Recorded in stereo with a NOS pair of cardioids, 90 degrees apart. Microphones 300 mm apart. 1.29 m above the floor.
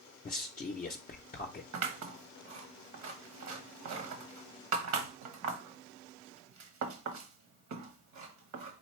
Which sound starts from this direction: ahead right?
Scissors, at 1.7 s.